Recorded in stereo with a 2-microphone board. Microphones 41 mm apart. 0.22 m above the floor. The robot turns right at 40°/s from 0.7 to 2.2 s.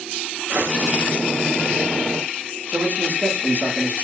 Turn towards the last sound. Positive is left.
turn(degrees=-80)